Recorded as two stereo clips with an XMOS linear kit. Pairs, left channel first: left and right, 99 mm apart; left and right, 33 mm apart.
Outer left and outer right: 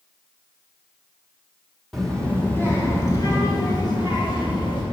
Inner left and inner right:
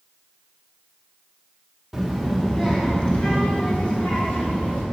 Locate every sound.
1.9 s a child speaking: centre (ahead or behind), 1.2 m; by 4.8 s 50° left (ahead or behind), 3.5 m